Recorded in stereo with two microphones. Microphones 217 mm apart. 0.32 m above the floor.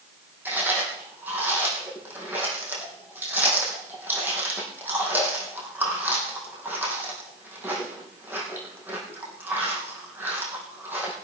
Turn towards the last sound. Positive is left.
turn(degrees=-10)  # may be behind; listen again after turning